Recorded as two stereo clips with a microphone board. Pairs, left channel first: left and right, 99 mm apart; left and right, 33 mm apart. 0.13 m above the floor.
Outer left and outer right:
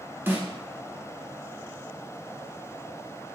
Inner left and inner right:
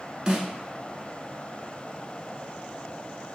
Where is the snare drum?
20° right (ahead or behind), 0.7 m.